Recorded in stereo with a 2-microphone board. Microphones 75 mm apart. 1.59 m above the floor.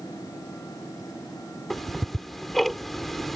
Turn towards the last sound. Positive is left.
turn(degrees=0)  # may be behind; listen again after turning